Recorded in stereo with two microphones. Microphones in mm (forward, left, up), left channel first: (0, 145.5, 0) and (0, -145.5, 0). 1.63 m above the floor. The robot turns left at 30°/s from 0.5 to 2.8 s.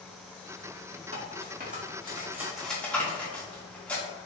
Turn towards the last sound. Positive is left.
turn(degrees=5)  # may be behind; listen again after turning